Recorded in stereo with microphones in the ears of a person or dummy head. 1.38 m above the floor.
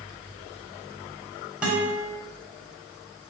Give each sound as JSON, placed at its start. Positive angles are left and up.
{"t": 1.6, "sound": "a guitar", "side_deg": -5, "distance_m": 1.5}